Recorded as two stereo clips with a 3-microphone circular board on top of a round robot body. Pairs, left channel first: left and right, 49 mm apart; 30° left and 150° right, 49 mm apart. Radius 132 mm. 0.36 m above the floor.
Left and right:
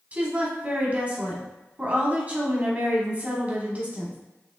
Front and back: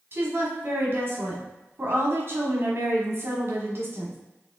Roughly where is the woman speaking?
Behind right.